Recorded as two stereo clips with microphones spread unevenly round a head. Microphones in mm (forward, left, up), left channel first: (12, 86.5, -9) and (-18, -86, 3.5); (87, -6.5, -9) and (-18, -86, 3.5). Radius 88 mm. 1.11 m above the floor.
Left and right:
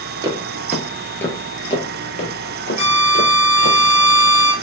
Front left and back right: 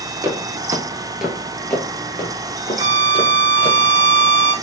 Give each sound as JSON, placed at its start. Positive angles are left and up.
{"t": 0.2, "sound": "footsteps", "azimuth_deg": -130, "distance_m": 1.2}
{"t": 2.8, "sound": "a violin", "azimuth_deg": 135, "distance_m": 1.9}